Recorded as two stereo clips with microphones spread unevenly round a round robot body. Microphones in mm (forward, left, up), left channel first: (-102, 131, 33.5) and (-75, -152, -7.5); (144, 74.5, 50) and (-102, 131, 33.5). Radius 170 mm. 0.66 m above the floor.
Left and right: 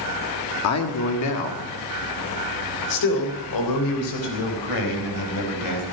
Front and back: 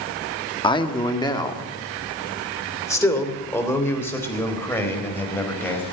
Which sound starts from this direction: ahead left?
A man speaking, at 0.6 s.